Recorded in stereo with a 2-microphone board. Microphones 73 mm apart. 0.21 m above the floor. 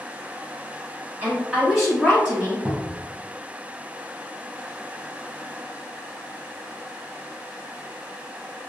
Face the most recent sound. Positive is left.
turn(degrees=-15)  # may be behind; listen again after turning